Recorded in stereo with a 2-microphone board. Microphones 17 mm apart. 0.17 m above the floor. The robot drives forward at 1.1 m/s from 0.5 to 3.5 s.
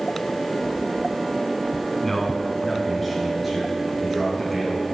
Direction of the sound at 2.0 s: 15° left (ahead or behind).